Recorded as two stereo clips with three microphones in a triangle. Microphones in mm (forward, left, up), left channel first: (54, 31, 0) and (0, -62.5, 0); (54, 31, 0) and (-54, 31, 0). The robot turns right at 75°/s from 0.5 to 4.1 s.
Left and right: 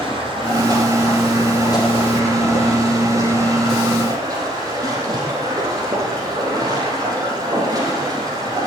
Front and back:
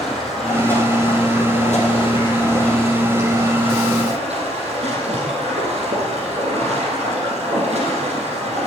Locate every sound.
0.0 s running water: 85° right, 4.5 m; by 8.7 s 175° right, 4.5 m